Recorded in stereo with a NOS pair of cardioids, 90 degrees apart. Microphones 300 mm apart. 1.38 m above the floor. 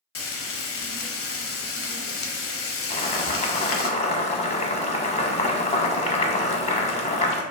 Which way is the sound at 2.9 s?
20° left.